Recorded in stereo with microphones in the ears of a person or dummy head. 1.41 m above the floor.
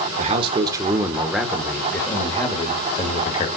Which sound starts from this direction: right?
A man speaking, at 0.2 s.